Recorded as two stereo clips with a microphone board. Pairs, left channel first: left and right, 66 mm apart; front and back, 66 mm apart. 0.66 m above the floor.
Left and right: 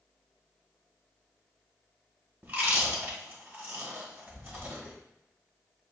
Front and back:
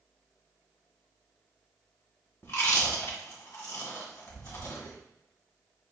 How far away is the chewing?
About 1.6 m.